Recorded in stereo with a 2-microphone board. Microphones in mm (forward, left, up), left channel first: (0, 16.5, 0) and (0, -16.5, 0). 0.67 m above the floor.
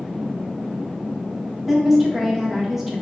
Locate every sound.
1.7 s a woman speaking: 10° right (ahead or behind), 0.6 m